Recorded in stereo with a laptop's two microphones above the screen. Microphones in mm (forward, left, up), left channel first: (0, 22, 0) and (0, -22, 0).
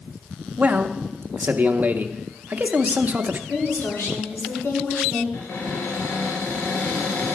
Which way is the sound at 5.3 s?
80° left.